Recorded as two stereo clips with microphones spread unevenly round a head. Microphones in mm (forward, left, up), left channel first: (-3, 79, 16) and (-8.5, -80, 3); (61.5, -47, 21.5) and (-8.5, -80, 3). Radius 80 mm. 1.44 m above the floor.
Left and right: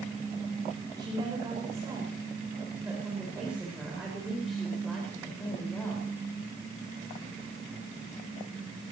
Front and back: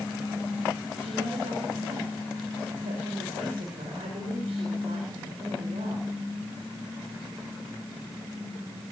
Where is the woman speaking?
160° right, 6 m; by 6.1 s 165° left, 5.5 m.